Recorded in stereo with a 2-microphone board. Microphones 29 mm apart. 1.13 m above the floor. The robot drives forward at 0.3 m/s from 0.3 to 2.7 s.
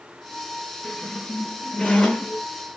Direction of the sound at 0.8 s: 30° left (ahead or behind).